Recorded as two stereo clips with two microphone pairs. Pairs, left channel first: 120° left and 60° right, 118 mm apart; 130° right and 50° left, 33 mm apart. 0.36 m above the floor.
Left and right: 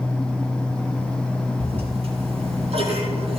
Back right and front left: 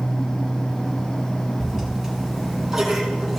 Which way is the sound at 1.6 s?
25° right.